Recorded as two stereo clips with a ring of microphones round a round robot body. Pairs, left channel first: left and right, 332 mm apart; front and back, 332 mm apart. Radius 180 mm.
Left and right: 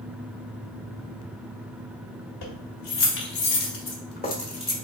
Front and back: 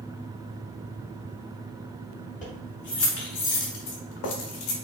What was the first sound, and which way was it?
Keys jangling, 70° left.